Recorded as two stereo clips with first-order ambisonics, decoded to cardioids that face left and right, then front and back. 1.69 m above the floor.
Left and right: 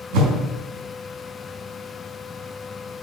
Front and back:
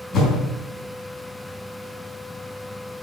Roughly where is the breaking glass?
No breaking glass in this recording.